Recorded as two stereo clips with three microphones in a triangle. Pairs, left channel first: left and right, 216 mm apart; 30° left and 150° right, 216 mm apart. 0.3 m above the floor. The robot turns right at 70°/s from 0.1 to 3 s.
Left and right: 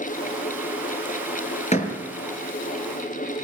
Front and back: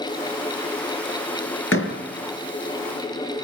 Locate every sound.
1.7 s a door slam: 35° left, 4.5 m; by 2.0 s 50° left, 4.5 m